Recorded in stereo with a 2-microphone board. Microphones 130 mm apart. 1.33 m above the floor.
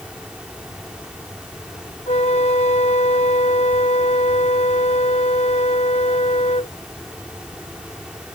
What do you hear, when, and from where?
2.1 s a flute: 60° left (ahead or behind)